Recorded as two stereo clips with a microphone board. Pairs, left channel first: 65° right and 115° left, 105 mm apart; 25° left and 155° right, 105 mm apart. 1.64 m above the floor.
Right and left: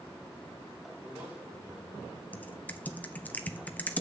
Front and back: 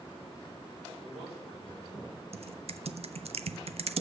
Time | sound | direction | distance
1.0 | a man speaking | 175° right | 4.5 m
2.3 | typing on a keyboard | 140° right | 0.5 m